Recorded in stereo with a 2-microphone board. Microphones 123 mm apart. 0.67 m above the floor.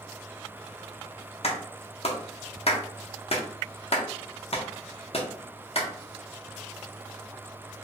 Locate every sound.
1.4 s a clap: 50° left (ahead or behind), 0.6 m